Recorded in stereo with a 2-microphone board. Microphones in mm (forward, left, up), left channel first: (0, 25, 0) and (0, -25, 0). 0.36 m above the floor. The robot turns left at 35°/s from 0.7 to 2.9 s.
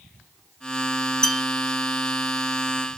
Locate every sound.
1.2 s a bell: 10° left (ahead or behind), 0.9 m; by 1.4 s 5° left (ahead or behind), 0.9 m